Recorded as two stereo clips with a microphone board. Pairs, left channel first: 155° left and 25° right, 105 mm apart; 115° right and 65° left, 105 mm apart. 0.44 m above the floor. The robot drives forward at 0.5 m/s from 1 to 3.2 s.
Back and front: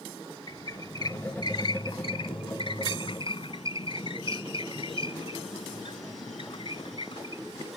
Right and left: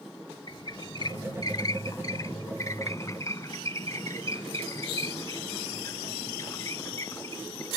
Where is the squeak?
155° right; by 7.7 s 170° right.